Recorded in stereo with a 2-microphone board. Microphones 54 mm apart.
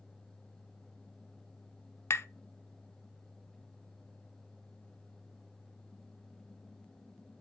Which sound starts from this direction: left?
Tapping, at 2.1 s.